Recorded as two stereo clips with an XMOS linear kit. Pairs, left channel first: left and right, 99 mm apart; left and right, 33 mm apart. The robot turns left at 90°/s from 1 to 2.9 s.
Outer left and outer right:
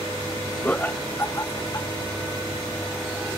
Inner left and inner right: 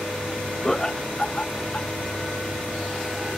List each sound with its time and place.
0.6 s laughter: 15° left (ahead or behind); by 1.9 s 35° left (ahead or behind)